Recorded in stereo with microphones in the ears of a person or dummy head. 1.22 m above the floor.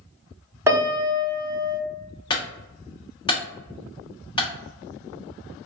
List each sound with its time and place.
0.7 s a piano: 10° right (ahead or behind), 0.8 m
2.3 s a clunk: 25° left (ahead or behind), 0.9 m